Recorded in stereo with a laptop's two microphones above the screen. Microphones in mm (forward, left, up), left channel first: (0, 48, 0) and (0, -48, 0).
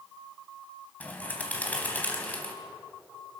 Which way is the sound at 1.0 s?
15° left (ahead or behind).